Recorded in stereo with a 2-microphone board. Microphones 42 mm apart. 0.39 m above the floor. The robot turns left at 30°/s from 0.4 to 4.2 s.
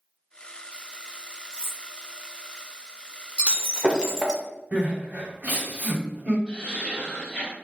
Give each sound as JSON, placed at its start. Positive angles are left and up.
{"t": 1.5, "sound": "cutlery clinking", "side_deg": -20, "distance_m": 1.6}
{"t": 3.4, "sound": "breaking glass", "side_deg": -25, "distance_m": 0.5}
{"t": 4.7, "sound": "crying", "side_deg": -40, "distance_m": 1.1}
{"t": 6.5, "sound": "laughter", "side_deg": 20, "distance_m": 1.7}